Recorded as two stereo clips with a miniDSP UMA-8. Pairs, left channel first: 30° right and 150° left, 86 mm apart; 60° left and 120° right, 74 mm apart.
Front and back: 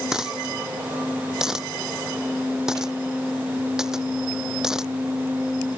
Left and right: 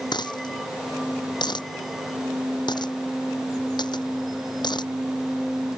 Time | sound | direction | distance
0.1 | a dropped coin | 65° left | ?